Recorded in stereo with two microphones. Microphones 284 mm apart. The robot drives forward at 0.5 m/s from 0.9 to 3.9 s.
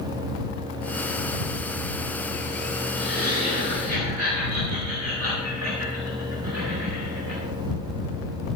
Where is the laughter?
55° right (ahead or behind), 4.5 m; by 7.4 s 60° right (ahead or behind), 4.5 m.